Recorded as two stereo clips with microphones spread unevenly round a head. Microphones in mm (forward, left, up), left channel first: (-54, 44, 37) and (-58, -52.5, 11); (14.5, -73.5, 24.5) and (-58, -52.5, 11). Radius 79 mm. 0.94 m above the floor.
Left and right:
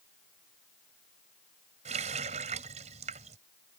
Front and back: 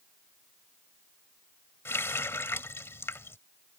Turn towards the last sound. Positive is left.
turn(degrees=-70)